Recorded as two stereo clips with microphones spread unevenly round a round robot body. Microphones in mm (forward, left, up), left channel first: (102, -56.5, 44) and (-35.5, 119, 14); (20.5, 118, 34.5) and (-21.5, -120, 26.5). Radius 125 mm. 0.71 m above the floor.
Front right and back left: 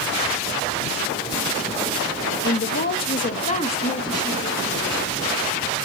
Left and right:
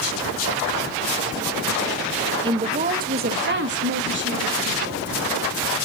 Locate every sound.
2.4 s a woman speaking: 45° right, 0.9 m; by 5.1 s 135° right, 1.7 m